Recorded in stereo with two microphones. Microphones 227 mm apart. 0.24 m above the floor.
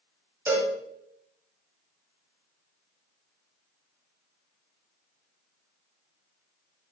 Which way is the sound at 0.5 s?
10° right (ahead or behind).